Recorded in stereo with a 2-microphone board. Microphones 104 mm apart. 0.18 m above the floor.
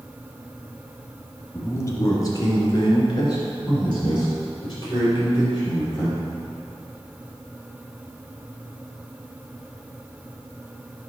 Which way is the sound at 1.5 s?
25° left (ahead or behind).